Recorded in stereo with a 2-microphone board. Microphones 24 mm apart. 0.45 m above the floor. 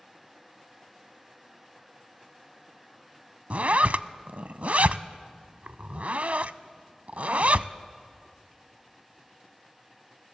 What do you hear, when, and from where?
3.5 s a zipper: 70° right (ahead or behind), 0.6 m